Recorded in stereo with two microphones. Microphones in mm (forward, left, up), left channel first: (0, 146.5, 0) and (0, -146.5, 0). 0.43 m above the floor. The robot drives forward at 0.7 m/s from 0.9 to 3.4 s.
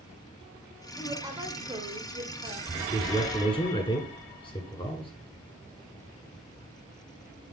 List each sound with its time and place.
1.0 s a woman speaking: 10° right (ahead or behind), 1.3 m; by 2.6 s 20° right (ahead or behind), 0.8 m
2.7 s a man speaking: 15° left (ahead or behind), 1.5 m; by 5.1 s 20° left (ahead or behind), 1.4 m